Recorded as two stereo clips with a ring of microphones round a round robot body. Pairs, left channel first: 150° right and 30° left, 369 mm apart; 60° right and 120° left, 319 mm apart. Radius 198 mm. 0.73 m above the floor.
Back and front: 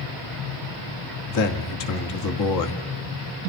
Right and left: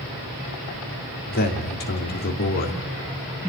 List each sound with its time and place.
1.3 s a man speaking: 120° right, 1.8 m